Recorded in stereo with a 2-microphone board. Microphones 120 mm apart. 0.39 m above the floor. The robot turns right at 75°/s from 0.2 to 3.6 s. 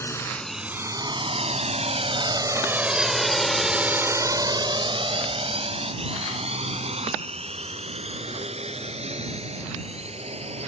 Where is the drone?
20° left (ahead or behind); by 10.7 s 60° right (ahead or behind).